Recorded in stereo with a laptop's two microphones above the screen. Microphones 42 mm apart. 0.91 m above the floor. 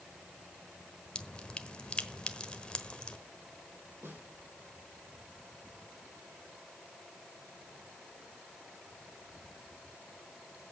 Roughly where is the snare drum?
Right.